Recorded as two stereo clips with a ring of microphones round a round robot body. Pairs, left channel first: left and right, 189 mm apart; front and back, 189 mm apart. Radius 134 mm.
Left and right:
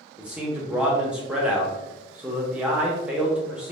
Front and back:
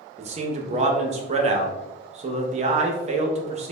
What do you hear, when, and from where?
0.2 s a man speaking: 170° right, 0.5 m